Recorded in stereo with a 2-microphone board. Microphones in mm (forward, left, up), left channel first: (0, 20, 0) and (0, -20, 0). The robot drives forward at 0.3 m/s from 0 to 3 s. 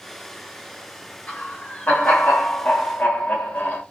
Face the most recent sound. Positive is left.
turn(degrees=50)  # may be behind; listen again after turning